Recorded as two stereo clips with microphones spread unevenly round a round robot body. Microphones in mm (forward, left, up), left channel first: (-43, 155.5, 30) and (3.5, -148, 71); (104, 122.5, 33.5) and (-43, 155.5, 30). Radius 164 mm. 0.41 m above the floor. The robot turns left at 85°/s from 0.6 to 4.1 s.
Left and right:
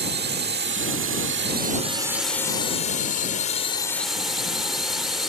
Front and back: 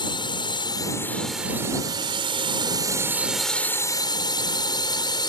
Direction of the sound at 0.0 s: 45° right.